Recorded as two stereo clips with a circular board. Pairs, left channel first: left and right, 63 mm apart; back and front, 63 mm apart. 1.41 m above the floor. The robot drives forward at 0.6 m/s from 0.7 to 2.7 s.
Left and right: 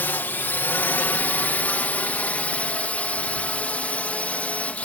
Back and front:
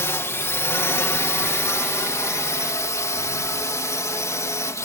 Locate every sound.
0.0 s a drone: 140° left; by 4.9 s 155° left